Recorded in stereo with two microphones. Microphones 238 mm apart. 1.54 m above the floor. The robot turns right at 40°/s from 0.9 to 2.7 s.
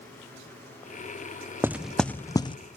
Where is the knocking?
10° right (ahead or behind), 0.6 m; by 2.6 s 25° left (ahead or behind), 0.6 m.